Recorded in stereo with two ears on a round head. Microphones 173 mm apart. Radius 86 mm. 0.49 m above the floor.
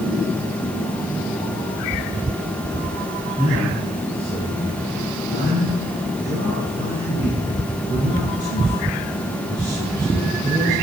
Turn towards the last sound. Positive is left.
turn(degrees=-20)  # may be behind; listen again after turning